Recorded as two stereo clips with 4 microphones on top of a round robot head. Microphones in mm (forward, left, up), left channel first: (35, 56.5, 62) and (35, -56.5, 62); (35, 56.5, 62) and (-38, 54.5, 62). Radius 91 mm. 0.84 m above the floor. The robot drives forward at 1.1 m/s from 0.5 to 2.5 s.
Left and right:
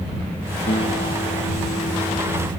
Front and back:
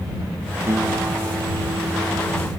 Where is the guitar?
130° left; by 2.5 s 135° left.